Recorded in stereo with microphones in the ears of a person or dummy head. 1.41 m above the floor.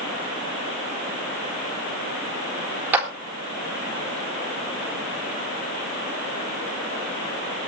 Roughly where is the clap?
Centre.